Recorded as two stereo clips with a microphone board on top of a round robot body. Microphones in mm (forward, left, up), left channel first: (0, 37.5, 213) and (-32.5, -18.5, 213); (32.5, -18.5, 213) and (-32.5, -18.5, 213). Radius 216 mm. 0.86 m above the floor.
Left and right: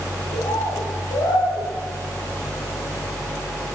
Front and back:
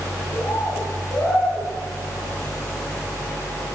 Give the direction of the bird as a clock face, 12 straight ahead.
10 o'clock.